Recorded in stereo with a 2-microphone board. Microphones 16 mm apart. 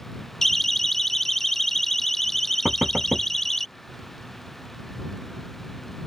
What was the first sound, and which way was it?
A siren, 20° left (ahead or behind).